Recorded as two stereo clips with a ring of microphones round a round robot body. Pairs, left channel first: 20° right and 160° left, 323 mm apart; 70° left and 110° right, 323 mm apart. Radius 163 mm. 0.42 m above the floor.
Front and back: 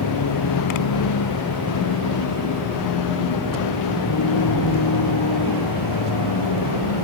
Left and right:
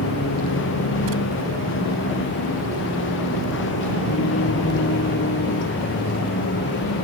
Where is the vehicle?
15° left; by 7.0 s 10° left.